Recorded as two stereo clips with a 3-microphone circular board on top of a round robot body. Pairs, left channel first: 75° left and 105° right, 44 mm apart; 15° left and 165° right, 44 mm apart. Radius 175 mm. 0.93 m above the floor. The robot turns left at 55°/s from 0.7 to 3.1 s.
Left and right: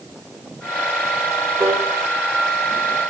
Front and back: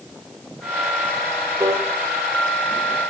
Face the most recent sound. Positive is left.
turn(degrees=130)